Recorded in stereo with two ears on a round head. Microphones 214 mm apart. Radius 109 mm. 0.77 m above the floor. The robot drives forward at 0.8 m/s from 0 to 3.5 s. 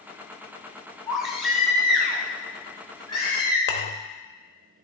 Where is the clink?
45° left (ahead or behind), 0.7 m.